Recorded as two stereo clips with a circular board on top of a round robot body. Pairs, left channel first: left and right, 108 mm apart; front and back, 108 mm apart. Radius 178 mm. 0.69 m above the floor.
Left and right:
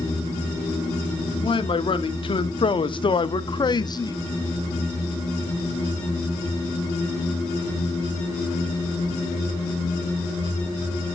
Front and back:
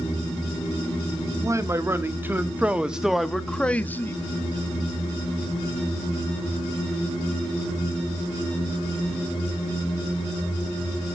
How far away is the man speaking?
About 1.7 m.